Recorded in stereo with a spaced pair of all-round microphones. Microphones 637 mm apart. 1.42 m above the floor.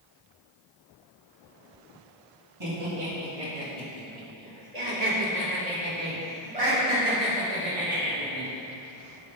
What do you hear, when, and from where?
2.6 s laughter: 45° right (ahead or behind), 2 m